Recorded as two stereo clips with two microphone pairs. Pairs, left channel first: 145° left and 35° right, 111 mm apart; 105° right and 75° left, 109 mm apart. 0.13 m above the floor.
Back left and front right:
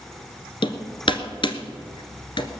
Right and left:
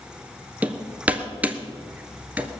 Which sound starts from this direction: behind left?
Hammering, at 0.6 s.